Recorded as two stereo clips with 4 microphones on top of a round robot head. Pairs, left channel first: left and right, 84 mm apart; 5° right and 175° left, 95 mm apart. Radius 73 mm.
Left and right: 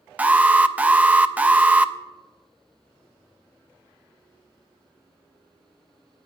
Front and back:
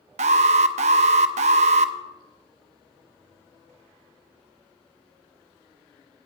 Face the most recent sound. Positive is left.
turn(degrees=-165)